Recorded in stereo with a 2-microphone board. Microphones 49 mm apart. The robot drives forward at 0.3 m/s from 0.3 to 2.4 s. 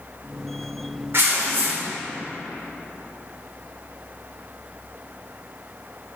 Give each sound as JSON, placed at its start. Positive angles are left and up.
{"t": 1.1, "sound": "tearing paper", "side_deg": -55, "distance_m": 0.6}